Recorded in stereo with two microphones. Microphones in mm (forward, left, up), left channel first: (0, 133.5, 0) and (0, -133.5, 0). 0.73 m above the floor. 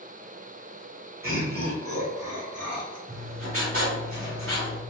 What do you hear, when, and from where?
1.2 s laughter: 50° right (ahead or behind), 2.0 m; by 3.0 s 70° right (ahead or behind), 2.5 m
3.1 s writing: 55° right (ahead or behind), 1.9 m